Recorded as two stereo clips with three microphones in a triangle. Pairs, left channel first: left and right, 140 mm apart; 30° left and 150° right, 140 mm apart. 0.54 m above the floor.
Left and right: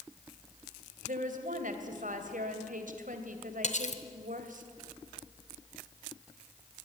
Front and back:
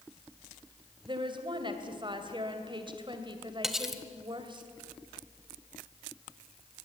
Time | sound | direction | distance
1.0 | a woman speaking | 95° right | 2.5 m
3.6 | cutlery clinking | 120° left | 1.6 m